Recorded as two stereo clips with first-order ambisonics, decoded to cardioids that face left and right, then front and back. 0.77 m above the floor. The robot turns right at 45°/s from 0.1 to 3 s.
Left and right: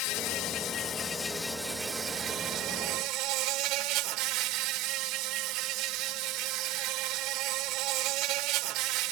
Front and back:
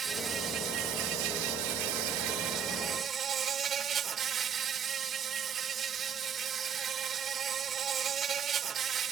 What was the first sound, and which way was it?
An insect, 110° left.